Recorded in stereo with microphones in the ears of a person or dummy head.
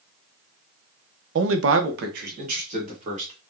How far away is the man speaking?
About 0.6 m.